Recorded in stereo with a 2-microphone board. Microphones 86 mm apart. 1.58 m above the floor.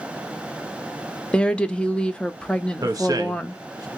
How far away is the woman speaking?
About 0.5 m.